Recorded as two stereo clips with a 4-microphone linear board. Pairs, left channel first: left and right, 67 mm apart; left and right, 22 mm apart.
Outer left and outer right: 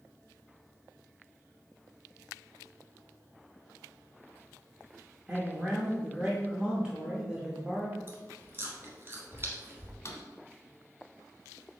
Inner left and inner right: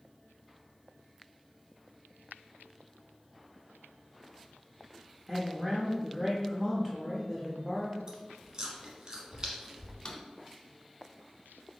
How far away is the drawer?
About 0.7 m.